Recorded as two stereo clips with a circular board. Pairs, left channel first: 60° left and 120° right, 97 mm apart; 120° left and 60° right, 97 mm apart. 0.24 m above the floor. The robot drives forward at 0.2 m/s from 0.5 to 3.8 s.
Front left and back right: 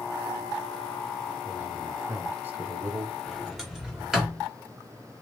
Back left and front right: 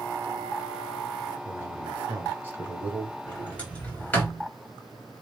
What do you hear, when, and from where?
1.4 s a man speaking: 65° right, 1.1 m; by 3.2 s 105° right, 1.1 m
3.3 s a sliding door: 155° left, 1.3 m; by 4.5 s 160° left, 1.3 m